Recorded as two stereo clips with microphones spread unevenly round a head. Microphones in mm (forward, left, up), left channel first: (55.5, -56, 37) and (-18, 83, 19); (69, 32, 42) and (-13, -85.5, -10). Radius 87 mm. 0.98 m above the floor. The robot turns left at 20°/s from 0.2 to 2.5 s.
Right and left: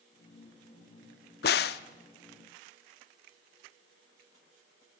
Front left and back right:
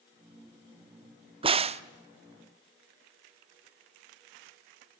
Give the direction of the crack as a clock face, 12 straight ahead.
2 o'clock.